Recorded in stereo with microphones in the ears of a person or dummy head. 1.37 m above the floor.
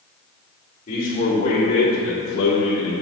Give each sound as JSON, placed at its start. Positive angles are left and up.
{"t": 0.9, "sound": "a man speaking", "side_deg": 45, "distance_m": 2.5}